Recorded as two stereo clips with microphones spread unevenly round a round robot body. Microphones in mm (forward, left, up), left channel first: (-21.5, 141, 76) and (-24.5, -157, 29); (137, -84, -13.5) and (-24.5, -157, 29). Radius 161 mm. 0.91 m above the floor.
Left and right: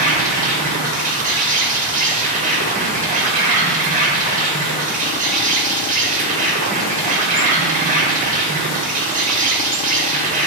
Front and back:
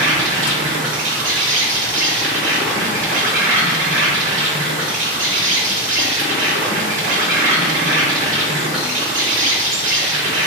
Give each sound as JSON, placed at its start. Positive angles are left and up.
{"t": 0.0, "sound": "an insect", "azimuth_deg": -150, "distance_m": 0.8}